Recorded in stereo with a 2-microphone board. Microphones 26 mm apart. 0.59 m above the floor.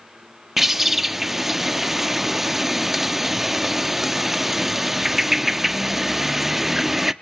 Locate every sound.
0.6 s a bird: 10° right (ahead or behind), 0.5 m